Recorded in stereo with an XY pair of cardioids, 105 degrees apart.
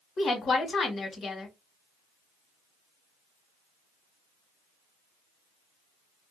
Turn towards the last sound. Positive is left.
turn(degrees=50)